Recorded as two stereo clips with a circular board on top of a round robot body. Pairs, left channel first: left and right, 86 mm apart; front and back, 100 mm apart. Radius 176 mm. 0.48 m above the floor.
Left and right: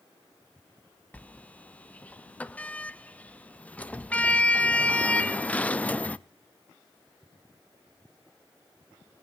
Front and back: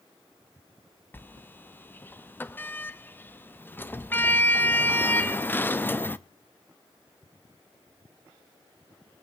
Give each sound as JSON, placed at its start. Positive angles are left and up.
{"t": 1.1, "sound": "a sliding door", "azimuth_deg": 40, "distance_m": 0.8}